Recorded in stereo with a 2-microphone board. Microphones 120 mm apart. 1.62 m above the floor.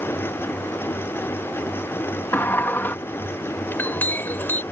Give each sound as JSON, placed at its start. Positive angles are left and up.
{"t": 2.3, "sound": "a sliding door", "side_deg": 20}
{"t": 3.7, "sound": "a clink", "side_deg": 15}